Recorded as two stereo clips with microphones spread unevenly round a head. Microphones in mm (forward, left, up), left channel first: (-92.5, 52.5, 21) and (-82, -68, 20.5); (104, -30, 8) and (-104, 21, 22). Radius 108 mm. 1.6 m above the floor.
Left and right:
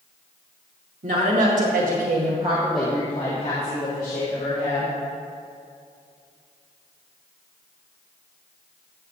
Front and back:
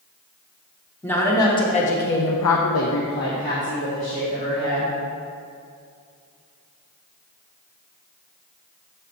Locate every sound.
1.0 s a woman speaking: 95° right, 2.0 m; by 4.9 s 50° left, 3.5 m